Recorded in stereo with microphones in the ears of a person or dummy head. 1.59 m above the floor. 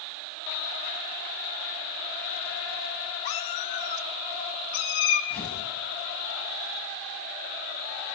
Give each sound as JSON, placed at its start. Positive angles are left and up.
{"t": 3.2, "sound": "a cat meowing", "side_deg": 20, "distance_m": 1.2}
{"t": 5.3, "sound": "tearing paper", "side_deg": 5, "distance_m": 7.5}